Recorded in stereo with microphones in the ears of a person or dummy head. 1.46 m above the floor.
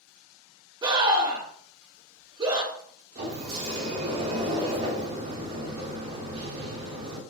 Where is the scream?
25° right (ahead or behind), 1.0 m.